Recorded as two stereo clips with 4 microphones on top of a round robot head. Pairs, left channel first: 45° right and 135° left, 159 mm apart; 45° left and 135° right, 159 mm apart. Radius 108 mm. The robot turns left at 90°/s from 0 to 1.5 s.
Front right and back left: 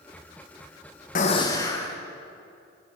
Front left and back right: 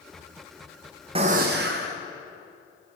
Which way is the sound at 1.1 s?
80° right.